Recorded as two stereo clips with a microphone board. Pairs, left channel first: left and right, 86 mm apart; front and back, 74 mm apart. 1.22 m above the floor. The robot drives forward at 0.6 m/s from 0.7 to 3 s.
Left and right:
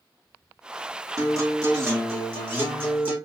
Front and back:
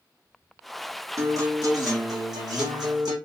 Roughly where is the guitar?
Behind right.